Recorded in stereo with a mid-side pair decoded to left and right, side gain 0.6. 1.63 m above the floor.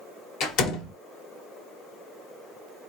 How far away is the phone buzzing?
No phone buzzing in this recording.